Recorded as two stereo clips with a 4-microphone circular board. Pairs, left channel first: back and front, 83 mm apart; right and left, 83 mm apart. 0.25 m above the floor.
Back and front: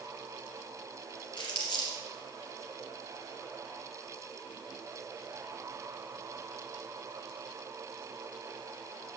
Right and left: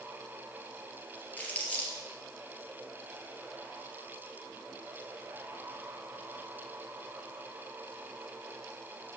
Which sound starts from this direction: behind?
Crumpling, at 1.4 s.